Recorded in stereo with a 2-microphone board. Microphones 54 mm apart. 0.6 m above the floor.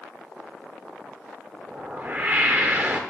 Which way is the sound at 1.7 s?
35° right (ahead or behind).